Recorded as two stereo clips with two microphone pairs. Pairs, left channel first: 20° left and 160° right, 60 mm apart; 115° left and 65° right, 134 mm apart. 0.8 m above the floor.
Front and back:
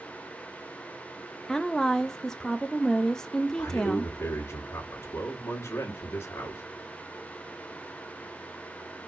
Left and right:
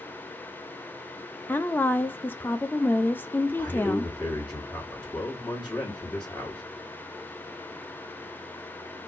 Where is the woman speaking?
90° left, 0.6 m.